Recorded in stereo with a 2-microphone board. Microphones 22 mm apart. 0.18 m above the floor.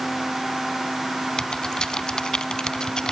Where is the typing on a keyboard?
35° left (ahead or behind), 0.6 m.